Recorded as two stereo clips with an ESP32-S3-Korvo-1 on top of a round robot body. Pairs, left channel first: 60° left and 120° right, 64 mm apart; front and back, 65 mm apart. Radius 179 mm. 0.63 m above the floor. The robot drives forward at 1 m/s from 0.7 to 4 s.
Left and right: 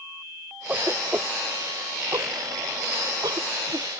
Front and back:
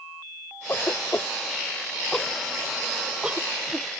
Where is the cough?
55° right; by 3.9 s 115° right.